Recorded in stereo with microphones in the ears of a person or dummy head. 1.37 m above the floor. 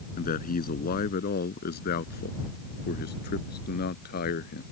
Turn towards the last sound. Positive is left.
turn(degrees=55)  # may be behind; listen again after turning